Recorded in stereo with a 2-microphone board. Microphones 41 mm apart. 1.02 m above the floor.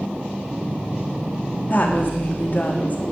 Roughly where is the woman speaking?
Left.